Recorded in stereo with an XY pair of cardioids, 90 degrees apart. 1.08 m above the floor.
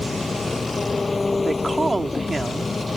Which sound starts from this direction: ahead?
An engine running, at 0.0 s.